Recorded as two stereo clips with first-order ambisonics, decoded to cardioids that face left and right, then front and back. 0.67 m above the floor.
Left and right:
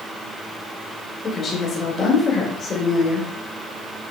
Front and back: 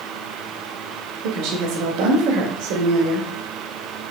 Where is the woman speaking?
155° left, 2.5 m.